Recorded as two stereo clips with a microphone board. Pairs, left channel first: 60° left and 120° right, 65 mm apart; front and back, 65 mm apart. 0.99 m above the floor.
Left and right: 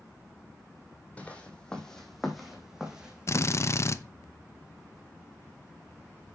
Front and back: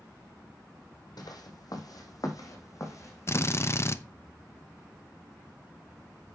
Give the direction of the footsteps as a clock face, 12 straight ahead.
12 o'clock.